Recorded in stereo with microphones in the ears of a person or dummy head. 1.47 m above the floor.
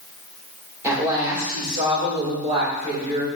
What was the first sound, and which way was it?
A woman speaking, 20° right (ahead or behind).